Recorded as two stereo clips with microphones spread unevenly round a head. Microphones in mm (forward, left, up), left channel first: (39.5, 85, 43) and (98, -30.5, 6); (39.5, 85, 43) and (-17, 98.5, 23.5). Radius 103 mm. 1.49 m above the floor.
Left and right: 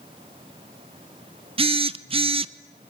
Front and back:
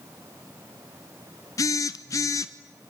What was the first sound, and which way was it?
A phone buzzing, 10° right.